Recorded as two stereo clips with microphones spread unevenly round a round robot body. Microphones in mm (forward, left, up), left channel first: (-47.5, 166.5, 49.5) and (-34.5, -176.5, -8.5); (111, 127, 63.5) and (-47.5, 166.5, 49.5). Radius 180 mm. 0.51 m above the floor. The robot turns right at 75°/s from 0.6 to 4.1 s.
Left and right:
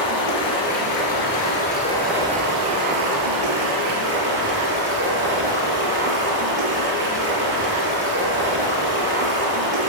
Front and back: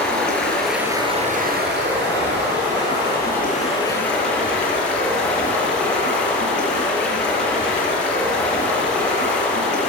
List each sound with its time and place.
0.0 s running water: 70° left, 4 m; by 9.9 s 25° right, 4 m